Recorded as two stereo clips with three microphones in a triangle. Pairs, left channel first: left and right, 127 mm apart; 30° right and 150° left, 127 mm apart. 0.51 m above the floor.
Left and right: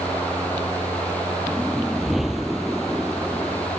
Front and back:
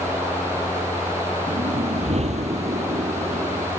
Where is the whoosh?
Straight behind.